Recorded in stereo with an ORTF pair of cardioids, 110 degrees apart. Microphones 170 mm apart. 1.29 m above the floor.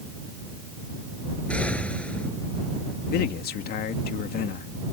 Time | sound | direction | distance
1.5 | an explosion | 5° left | ?
3.1 | a man speaking | 65° left | ?